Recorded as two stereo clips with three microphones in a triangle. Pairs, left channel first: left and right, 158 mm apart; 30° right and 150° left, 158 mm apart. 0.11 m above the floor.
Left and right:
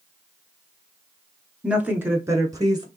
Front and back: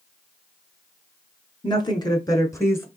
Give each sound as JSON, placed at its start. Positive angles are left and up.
{"t": 1.6, "sound": "a woman speaking", "azimuth_deg": -15, "distance_m": 1.2}